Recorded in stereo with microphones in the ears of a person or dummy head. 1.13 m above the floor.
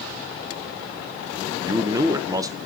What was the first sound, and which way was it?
A man speaking, 20° right (ahead or behind).